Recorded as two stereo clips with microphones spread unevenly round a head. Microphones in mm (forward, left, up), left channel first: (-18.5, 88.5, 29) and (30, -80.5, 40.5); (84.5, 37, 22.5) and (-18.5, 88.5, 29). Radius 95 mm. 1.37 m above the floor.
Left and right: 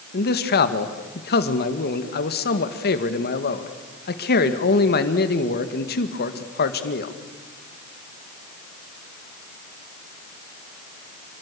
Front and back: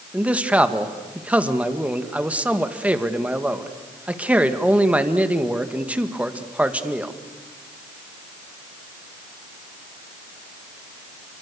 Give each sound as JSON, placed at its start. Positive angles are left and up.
{"t": 0.1, "sound": "a man speaking", "azimuth_deg": 75, "distance_m": 2.0}